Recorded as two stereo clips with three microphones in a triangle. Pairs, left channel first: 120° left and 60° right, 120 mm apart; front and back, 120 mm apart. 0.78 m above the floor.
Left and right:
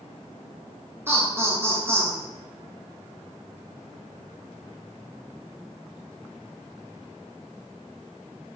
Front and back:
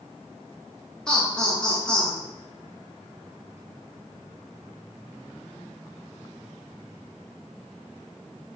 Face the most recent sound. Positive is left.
turn(degrees=-70)